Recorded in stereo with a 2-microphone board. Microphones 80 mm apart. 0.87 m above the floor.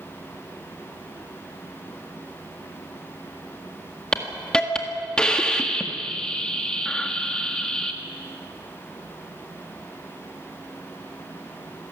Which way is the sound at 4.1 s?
10° left (ahead or behind).